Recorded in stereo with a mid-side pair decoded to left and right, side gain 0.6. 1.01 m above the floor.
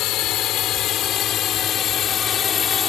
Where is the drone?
65° left; by 2.9 s 40° left.